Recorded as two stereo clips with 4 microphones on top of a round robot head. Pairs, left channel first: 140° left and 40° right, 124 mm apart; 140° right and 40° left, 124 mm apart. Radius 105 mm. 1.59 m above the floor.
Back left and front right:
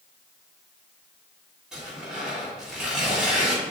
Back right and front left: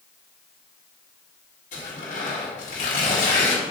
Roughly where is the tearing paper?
Behind right.